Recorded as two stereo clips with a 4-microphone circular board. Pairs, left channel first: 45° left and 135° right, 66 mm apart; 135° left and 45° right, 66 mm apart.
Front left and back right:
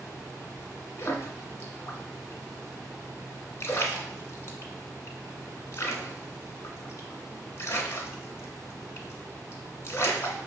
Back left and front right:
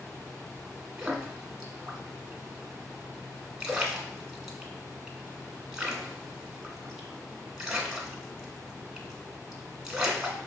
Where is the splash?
30° left, 0.7 m.